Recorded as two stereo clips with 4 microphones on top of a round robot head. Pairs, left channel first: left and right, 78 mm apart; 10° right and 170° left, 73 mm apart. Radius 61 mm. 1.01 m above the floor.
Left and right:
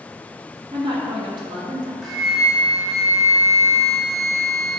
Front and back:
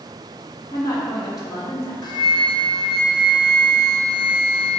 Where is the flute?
Straight ahead, 1.1 m.